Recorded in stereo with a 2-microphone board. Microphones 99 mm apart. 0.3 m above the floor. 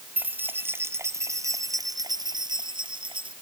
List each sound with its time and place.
0.2 s keys jangling: 20° right (ahead or behind); by 3.3 s 60° right (ahead or behind)